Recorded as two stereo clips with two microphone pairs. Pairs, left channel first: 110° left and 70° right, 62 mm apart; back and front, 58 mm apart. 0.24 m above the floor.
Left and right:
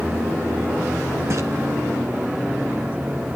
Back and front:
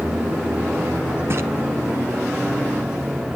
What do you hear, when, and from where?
1.3 s a splash: 35° right, 1.1 m